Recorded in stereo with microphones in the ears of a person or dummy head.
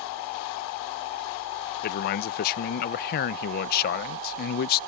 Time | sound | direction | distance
1.8 | a man speaking | 50° left (ahead or behind) | ?